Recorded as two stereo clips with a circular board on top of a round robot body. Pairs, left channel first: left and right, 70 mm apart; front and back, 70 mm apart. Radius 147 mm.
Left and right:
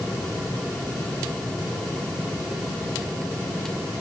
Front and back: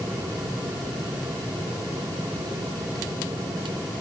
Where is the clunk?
No clunk in this recording.